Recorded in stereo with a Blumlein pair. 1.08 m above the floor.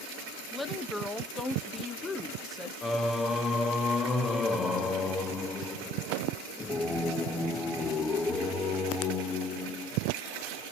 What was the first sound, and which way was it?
A woman speaking, 10° left.